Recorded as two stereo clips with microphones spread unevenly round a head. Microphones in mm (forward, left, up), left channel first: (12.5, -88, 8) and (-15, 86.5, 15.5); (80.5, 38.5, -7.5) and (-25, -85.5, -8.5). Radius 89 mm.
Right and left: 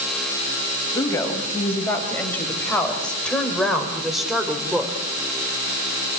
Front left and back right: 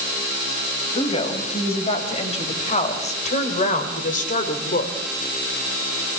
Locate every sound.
0.9 s a woman speaking: 5° right, 5.5 m; by 5.0 s 15° left, 3 m